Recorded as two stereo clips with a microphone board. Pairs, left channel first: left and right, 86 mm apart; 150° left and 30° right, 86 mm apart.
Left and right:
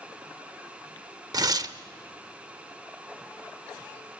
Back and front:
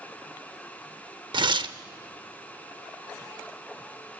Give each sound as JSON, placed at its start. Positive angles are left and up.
{"t": 1.3, "sound": "tearing paper", "azimuth_deg": -50, "distance_m": 0.7}